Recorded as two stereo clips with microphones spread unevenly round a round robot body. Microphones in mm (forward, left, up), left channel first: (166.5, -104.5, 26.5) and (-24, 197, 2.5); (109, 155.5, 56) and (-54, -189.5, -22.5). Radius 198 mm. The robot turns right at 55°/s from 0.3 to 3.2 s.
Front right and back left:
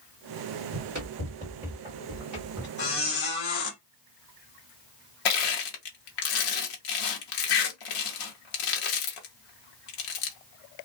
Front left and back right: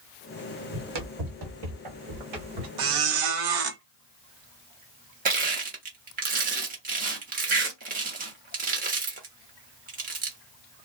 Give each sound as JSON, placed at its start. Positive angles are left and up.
{"t": 0.7, "sound": "running footsteps", "azimuth_deg": -165, "distance_m": 1.2}
{"t": 2.8, "sound": "a squeak", "azimuth_deg": -125, "distance_m": 0.9}
{"t": 5.2, "sound": "crushing", "azimuth_deg": -55, "distance_m": 0.9}